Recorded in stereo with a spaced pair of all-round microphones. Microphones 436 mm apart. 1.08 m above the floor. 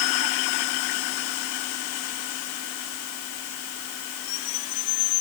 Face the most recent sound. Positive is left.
No sound to turn to.